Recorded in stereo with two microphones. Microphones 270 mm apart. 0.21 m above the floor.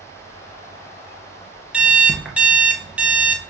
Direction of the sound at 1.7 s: 5° right (ahead or behind).